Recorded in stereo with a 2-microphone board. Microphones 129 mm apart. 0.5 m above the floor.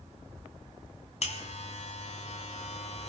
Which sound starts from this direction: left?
A buzzer, at 1.2 s.